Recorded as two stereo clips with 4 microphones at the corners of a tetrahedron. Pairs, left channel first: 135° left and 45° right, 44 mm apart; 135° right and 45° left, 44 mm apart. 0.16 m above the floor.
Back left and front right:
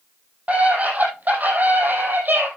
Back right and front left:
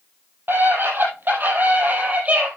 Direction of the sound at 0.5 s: 10° left.